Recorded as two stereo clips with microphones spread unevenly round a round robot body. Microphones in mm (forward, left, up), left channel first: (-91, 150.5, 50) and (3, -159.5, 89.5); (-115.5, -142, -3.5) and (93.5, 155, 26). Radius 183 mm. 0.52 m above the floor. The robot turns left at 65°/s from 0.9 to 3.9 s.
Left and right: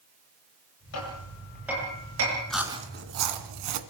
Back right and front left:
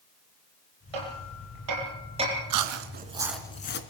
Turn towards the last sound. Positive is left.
turn(degrees=-70)